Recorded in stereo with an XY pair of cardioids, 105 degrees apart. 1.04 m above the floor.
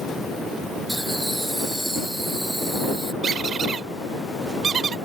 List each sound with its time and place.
0.9 s laughter: 10° right
3.2 s a squeak: 50° right